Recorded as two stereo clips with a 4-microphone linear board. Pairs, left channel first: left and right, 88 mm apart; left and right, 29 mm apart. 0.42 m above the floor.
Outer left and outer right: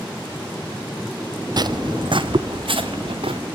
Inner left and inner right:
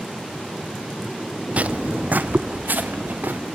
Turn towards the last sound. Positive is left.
turn(degrees=-80)